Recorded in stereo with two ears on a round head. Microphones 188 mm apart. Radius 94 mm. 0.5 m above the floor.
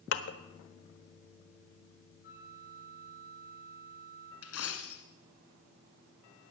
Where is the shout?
I don't hear a shout.